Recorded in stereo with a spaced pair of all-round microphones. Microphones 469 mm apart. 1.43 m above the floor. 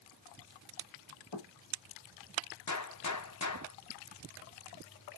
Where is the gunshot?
40° left (ahead or behind), 0.7 m.